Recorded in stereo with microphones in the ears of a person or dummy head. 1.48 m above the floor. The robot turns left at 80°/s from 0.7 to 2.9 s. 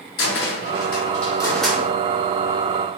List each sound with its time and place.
0.2 s a cupboard door: 60° left (ahead or behind), 0.6 m; by 1.8 s 15° right (ahead or behind), 0.6 m